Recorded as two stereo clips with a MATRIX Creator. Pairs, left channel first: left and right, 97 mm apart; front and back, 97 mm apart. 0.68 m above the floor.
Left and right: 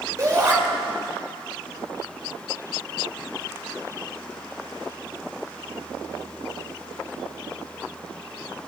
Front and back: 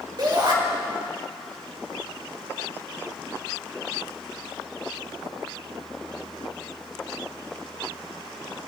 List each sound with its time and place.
0.2 s a shout: 140° right, 3 m